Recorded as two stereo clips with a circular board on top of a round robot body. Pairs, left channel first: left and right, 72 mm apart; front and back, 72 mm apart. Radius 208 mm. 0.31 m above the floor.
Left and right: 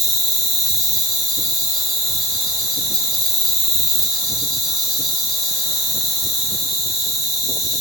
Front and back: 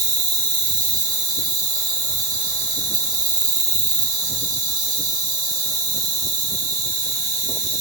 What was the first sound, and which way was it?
An insect, straight behind.